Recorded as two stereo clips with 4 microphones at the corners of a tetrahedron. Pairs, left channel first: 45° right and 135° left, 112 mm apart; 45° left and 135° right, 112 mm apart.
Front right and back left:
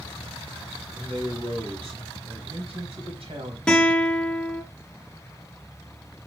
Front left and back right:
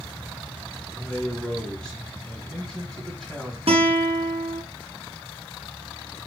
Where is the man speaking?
130° left, 3 m.